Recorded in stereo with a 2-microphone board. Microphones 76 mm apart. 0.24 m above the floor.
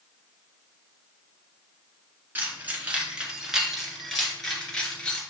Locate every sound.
2.4 s keys jangling: 25° right (ahead or behind), 1.8 m; by 5.2 s 15° left (ahead or behind), 2.5 m